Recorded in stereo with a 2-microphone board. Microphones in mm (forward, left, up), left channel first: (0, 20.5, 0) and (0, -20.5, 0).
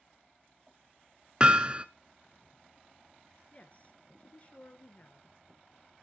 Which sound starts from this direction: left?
A woman speaking, at 3.5 s.